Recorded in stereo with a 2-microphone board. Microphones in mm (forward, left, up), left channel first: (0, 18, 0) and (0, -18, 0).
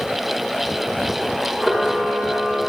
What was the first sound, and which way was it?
A camera shutter, centre (ahead or behind).